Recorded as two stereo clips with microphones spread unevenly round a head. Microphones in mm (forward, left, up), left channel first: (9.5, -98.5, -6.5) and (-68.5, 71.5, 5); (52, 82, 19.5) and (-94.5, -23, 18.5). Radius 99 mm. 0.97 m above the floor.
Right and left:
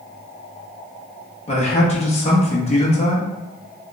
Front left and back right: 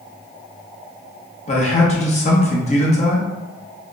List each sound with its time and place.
1.5 s a man speaking: 15° right, 0.8 m